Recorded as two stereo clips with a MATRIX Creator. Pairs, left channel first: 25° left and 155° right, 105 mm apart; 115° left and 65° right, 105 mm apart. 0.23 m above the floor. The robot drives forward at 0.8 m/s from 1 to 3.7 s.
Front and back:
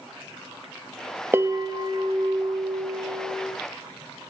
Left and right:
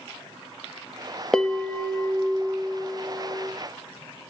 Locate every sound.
1.3 s a bell: 175° right, 0.5 m; by 3.5 s straight behind, 2 m